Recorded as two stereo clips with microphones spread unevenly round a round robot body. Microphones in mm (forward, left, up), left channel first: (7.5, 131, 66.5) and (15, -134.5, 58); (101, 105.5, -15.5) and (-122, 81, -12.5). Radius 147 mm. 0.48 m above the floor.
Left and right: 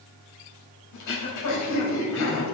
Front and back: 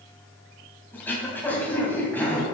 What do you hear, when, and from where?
0.9 s throat clearing: 90° left, 3 m